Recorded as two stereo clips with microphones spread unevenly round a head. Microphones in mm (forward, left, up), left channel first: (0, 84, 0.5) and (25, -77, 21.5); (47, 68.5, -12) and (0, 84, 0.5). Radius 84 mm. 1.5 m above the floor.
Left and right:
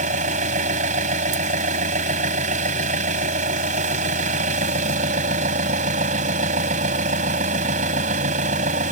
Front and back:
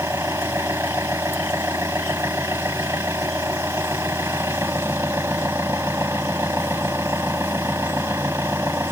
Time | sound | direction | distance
0.0 | an engine running | 130° right | ?